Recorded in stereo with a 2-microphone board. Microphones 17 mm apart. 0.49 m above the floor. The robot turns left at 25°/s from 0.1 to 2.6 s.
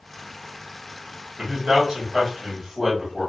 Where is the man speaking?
50° right (ahead or behind), 2.5 m; by 3.3 s 20° right (ahead or behind), 2.5 m.